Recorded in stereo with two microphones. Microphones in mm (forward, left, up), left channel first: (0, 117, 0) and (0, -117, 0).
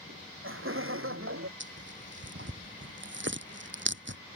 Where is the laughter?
60° right (ahead or behind); by 1.5 s 65° right (ahead or behind).